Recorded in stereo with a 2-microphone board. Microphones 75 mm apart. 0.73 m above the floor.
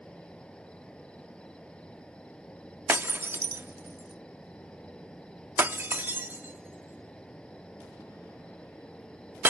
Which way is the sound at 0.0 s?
15° left (ahead or behind).